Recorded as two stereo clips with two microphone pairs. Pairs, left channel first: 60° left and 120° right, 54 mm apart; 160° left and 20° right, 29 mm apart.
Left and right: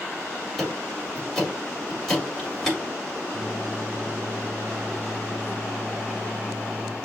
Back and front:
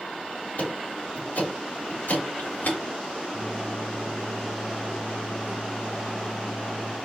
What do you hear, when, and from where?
0.6 s ticking: 150° left, 3.5 m
3.3 s a microwave: straight behind, 3 m